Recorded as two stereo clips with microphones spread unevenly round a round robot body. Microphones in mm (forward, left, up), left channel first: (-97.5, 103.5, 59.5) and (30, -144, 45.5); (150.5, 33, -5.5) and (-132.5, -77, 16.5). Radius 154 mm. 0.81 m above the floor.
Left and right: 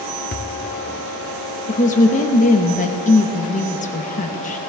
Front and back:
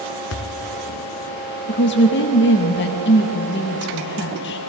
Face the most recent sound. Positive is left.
turn(degrees=60)